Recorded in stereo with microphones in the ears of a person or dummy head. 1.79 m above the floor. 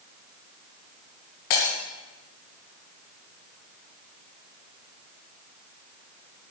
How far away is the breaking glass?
About 3 m.